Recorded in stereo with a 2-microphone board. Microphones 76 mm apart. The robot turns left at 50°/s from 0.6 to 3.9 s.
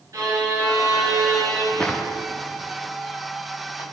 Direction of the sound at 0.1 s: 80° right.